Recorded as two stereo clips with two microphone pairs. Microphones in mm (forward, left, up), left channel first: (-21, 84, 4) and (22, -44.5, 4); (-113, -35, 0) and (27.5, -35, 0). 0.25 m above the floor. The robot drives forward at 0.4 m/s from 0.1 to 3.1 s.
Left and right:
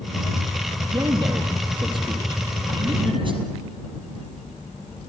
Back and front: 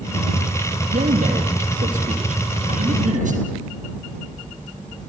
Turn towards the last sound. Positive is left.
turn(degrees=-20)